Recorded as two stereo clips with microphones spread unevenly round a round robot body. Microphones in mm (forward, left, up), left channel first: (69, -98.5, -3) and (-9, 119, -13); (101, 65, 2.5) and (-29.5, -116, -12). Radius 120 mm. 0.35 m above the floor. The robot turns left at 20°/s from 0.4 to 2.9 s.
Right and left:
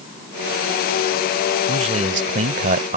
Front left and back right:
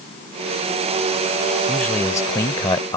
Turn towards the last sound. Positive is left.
turn(degrees=115)